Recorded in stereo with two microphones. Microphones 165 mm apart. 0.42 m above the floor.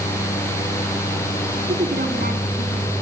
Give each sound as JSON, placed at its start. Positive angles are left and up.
{"t": 1.7, "sound": "a woman speaking", "side_deg": -70, "distance_m": 4.0}